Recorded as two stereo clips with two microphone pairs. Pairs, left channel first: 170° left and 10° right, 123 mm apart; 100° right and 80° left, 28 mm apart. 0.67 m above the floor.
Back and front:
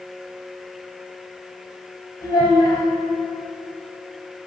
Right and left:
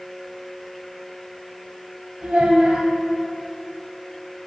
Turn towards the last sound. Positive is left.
turn(degrees=120)